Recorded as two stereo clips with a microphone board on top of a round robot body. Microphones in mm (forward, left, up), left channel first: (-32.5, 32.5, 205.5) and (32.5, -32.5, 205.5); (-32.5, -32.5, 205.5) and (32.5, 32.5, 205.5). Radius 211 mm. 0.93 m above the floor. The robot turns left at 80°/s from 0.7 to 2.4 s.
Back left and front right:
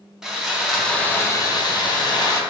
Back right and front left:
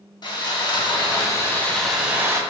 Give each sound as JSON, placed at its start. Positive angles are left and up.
{"t": 0.2, "sound": "sawing", "azimuth_deg": -130, "distance_m": 0.8}